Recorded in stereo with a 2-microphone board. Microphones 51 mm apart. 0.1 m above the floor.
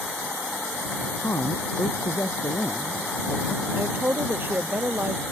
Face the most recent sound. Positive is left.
turn(degrees=-45)  # may be behind; listen again after turning